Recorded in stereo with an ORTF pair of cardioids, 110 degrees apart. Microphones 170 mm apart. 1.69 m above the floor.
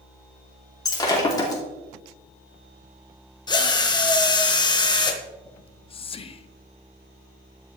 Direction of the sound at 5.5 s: 35° left.